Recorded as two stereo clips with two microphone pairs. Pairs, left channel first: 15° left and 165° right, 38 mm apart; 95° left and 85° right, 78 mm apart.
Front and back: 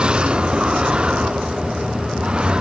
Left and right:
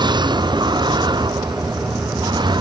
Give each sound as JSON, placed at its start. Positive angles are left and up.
{"t": 0.0, "sound": "a vehicle", "azimuth_deg": -100}